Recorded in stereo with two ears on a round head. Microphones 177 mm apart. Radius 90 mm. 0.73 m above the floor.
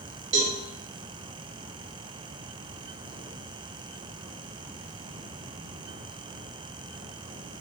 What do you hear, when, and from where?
0.3 s a cowbell: 35° right (ahead or behind), 1.2 m